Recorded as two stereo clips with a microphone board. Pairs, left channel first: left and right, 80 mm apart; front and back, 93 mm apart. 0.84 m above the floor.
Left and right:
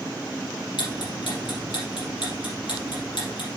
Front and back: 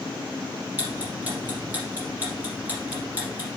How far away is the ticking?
About 4.5 m.